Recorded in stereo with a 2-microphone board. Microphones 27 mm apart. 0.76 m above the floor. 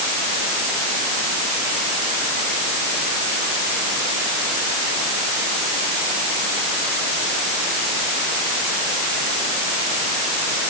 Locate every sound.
Only background noise.